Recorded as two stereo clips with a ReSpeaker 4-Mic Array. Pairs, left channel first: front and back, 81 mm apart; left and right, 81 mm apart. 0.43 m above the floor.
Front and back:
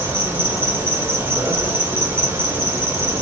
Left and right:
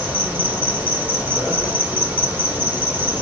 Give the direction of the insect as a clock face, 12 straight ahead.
5 o'clock.